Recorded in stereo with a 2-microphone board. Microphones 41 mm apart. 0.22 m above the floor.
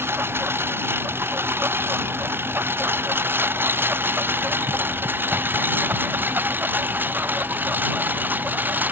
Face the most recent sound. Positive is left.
turn(degrees=-50)  # may be behind; listen again after turning